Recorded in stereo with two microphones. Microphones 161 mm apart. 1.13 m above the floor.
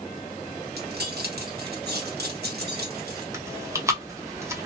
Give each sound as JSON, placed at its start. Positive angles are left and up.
{"t": 0.8, "sound": "keys jangling", "side_deg": -80, "distance_m": 0.9}
{"t": 3.3, "sound": "chewing", "side_deg": -20, "distance_m": 0.7}